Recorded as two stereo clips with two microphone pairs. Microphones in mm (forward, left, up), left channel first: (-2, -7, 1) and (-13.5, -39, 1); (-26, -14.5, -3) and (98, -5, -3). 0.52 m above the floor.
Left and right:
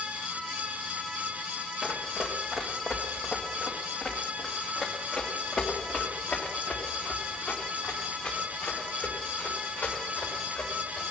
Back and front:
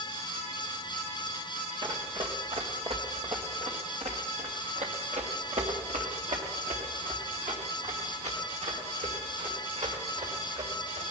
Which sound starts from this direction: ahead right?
Running footsteps, at 1.8 s.